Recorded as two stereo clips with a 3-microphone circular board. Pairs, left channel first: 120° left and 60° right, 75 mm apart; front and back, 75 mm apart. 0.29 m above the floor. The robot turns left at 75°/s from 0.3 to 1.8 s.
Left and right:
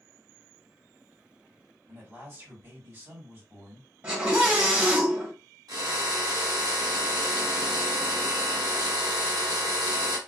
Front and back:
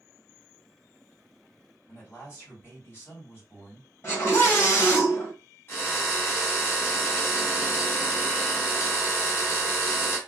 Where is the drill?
50° right, 1.2 m.